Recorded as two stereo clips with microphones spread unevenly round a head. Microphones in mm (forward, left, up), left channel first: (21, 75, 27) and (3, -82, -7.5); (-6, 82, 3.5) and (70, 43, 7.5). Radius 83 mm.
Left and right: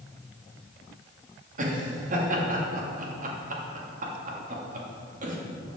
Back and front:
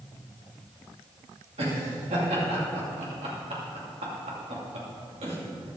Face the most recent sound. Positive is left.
turn(degrees=-55)